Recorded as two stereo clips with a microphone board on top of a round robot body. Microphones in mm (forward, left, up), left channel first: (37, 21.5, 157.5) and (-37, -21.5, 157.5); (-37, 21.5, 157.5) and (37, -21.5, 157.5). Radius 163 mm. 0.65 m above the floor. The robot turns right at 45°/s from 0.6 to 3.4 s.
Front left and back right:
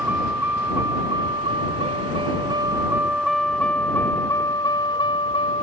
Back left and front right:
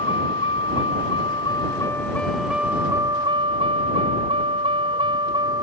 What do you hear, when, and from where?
0.0 s a vehicle: 140° left; by 5.6 s 10° left